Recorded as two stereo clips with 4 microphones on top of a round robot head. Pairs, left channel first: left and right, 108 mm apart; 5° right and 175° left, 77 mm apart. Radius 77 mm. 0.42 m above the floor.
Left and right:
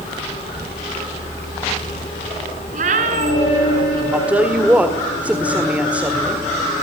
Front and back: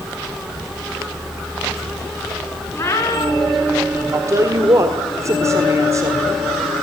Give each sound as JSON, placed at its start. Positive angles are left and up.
{"t": 2.7, "sound": "a cat meowing", "azimuth_deg": -75, "distance_m": 3.0}
{"t": 4.1, "sound": "a woman speaking", "azimuth_deg": -160, "distance_m": 1.8}